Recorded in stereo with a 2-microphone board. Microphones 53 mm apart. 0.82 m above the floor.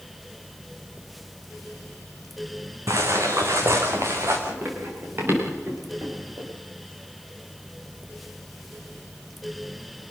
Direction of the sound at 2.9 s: 80° right.